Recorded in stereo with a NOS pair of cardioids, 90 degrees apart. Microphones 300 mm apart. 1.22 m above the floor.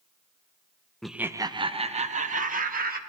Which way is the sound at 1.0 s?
Straight ahead.